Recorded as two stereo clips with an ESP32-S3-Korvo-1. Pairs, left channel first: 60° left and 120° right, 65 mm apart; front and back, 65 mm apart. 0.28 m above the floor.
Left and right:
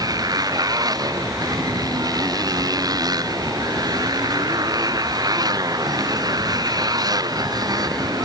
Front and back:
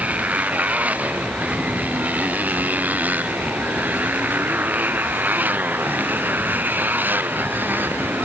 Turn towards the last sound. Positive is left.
turn(degrees=-120)